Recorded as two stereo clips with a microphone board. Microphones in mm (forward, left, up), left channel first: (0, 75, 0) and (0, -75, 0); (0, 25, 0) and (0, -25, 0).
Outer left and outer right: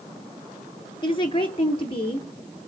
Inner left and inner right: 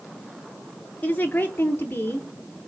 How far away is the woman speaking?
About 2 m.